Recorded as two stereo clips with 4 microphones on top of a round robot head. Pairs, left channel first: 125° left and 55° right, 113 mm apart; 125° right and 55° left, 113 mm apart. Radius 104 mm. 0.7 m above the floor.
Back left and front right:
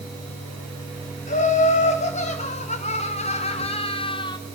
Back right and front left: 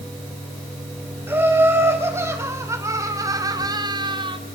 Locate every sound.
1.3 s laughter: 125° left, 5 m; by 4.4 s 85° left, 1.7 m